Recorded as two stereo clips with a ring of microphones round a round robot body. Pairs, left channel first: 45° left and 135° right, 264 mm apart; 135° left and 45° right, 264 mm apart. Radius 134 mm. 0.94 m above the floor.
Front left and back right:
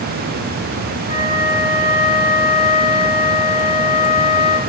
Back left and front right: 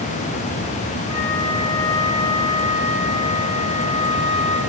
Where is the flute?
65° left, 1.9 m.